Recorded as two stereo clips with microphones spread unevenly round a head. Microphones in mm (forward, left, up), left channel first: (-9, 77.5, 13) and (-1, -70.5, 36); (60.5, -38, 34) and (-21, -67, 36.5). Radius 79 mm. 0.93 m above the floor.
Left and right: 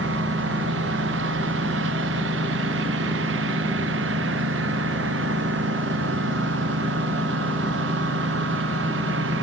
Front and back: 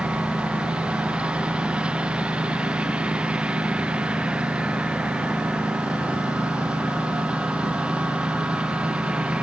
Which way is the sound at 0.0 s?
85° right.